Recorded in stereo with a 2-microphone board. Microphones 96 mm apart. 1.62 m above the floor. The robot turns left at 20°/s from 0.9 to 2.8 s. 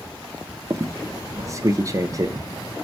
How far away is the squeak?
About 0.6 m.